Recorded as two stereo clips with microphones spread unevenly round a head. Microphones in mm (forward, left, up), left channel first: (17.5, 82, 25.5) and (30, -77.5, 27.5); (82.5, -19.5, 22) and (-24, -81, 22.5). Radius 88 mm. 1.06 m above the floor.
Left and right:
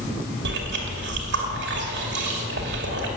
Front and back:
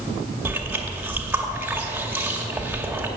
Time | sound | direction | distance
0.5 | chewing | 75° right | 2.5 m